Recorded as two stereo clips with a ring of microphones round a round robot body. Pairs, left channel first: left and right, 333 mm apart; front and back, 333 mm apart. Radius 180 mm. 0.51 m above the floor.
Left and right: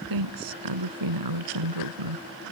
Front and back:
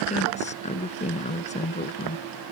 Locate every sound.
0.1 s a woman speaking: 70° right